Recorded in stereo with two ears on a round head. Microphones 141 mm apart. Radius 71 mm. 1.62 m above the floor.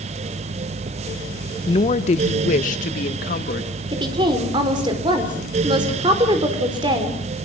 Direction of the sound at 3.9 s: 30° right (ahead or behind).